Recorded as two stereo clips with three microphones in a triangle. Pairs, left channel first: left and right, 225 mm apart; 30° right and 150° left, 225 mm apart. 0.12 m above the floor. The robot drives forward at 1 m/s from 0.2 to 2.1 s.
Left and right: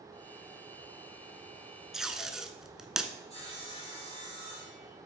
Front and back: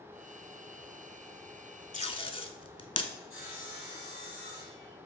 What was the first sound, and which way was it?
Tape being pulled, 5° right.